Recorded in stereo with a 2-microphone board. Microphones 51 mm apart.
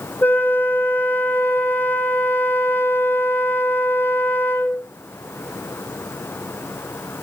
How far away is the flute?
About 1.8 m.